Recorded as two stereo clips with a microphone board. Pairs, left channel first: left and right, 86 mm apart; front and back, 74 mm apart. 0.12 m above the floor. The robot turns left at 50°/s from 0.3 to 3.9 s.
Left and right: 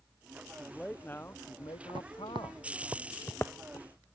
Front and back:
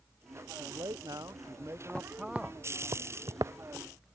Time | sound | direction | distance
0.5 | a man speaking | 175° right | ?
1.9 | footsteps | 70° right | ?